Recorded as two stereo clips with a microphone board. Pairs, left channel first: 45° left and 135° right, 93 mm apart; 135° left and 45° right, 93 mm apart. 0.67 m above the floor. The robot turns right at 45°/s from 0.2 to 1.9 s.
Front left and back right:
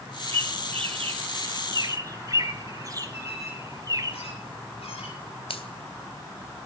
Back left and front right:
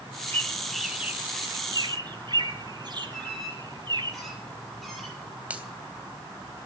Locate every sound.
0.3 s a bird: 155° right, 1.3 m; by 4.1 s 80° right, 1.3 m
3.1 s a squeak: 50° left, 8 m
5.5 s a finger snap: 30° left, 3 m